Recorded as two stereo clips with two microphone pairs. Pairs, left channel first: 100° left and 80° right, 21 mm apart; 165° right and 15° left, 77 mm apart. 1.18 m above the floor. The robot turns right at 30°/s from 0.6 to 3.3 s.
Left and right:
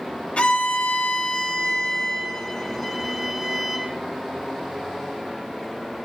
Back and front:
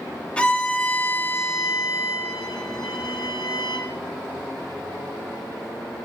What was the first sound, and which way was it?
A violin, 120° left.